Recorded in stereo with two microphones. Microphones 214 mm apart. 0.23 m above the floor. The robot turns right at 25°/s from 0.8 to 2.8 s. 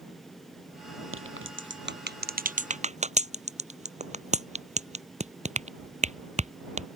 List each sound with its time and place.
1.1 s a crack: 70° right (ahead or behind); by 6.9 s 30° right (ahead or behind)